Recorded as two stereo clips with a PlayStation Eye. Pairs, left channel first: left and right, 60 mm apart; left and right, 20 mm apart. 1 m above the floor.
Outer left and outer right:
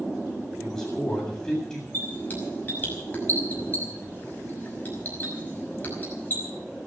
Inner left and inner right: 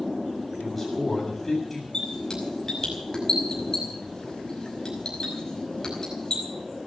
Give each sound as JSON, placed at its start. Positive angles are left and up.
{"t": 0.6, "sound": "a man speaking", "side_deg": 10, "distance_m": 8.0}
{"t": 1.9, "sound": "a squeak", "side_deg": 30, "distance_m": 5.5}